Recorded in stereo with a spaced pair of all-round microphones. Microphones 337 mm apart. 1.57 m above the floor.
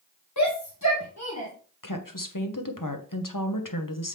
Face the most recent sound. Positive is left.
turn(degrees=70)  # may be behind; listen again after turning